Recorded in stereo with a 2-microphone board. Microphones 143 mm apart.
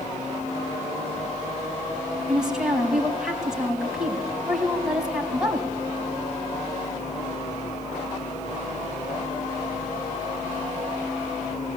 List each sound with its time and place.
2.3 s a woman speaking: 5° right (ahead or behind), 3.5 m